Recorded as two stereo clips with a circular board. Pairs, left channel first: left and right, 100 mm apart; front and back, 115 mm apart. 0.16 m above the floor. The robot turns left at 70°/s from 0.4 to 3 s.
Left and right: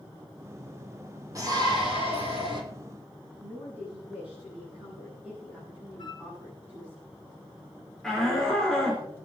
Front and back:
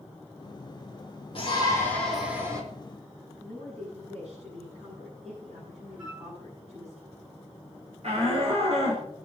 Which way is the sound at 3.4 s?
165° right.